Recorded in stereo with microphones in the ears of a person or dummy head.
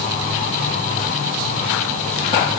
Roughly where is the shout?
I don't hear a shout.